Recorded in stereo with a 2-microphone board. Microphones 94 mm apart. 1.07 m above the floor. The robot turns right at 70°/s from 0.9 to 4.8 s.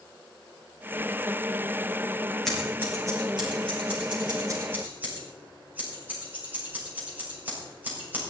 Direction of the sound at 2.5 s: 5° left (ahead or behind).